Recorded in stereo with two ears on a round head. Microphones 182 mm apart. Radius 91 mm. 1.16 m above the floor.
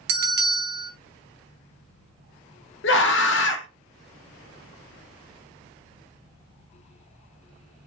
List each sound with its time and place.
0.1 s a bell: 55° right (ahead or behind), 0.7 m
2.8 s a scream: 60° left (ahead or behind), 0.7 m